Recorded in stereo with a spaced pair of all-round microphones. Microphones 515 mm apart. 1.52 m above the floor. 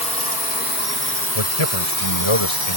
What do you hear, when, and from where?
0.0 s a drone: 15° left (ahead or behind); by 2.8 s 45° left (ahead or behind)
1.4 s a man speaking: 75° left (ahead or behind)